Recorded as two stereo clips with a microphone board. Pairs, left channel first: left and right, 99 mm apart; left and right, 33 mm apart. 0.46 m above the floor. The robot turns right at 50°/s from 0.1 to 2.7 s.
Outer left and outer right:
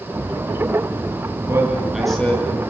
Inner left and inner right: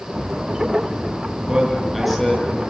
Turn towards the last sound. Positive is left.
turn(degrees=30)